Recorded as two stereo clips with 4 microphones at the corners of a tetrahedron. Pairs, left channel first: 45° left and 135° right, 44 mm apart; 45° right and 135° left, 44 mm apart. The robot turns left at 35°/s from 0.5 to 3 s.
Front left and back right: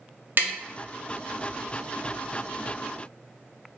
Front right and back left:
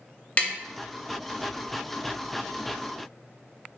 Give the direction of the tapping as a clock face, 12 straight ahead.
3 o'clock.